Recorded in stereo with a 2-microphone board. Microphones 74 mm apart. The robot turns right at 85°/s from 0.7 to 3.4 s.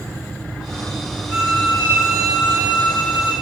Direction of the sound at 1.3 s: 20° right.